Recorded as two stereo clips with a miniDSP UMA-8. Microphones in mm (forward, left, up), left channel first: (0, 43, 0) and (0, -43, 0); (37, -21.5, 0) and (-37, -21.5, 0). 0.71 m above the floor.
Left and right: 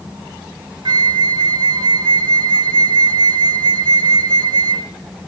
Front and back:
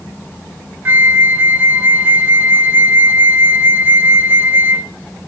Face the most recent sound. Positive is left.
turn(degrees=-120)